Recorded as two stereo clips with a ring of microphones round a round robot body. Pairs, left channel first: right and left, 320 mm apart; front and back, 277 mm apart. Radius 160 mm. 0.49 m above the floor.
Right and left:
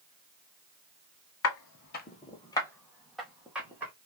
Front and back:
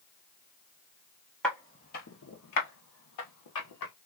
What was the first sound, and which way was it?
Footsteps, 85° right.